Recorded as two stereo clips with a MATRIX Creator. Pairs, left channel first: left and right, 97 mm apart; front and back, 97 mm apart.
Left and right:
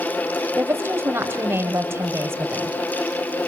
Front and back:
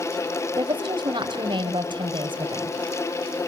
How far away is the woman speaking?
About 3 m.